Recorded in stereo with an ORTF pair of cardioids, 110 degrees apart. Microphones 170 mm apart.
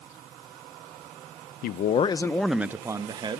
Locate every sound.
1.6 s a man speaking: 65° left, 0.6 m; by 3.4 s 30° right, 1.3 m